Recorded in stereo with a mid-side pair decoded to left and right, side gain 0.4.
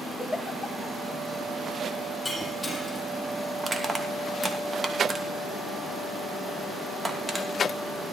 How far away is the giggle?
About 4 m.